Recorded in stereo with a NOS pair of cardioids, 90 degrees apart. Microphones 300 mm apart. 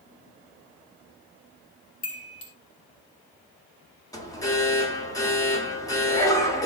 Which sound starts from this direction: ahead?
An alarm, at 4.1 s.